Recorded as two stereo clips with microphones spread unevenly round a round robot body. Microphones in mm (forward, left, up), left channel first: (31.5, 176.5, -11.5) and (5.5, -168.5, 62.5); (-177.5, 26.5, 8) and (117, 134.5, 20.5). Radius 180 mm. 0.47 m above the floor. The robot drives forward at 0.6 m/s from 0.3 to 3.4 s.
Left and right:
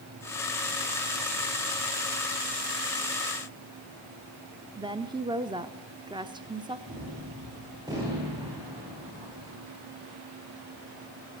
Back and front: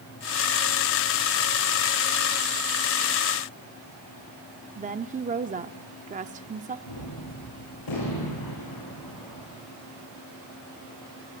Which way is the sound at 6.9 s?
175° right.